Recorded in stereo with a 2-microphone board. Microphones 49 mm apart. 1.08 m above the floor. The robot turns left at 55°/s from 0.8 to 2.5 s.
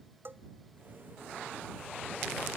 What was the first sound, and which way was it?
A bell, 50° right (ahead or behind).